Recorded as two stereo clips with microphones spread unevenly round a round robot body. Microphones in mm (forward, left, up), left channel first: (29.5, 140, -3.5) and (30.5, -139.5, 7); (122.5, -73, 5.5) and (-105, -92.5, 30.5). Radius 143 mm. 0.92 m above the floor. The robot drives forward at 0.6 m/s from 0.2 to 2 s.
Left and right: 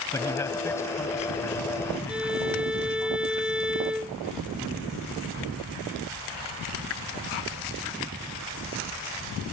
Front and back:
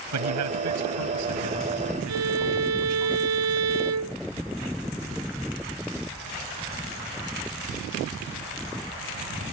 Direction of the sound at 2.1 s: 175° right.